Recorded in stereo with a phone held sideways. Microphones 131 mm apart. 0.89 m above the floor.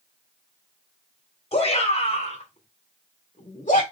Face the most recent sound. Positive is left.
turn(degrees=75)  # may be behind; listen again after turning